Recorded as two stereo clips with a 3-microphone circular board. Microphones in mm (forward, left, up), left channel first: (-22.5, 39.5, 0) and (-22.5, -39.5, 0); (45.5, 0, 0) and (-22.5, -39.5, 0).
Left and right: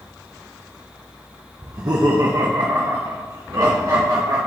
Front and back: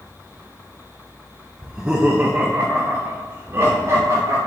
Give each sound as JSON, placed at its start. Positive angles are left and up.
{"t": 1.6, "sound": "laughter", "azimuth_deg": -65, "distance_m": 0.7}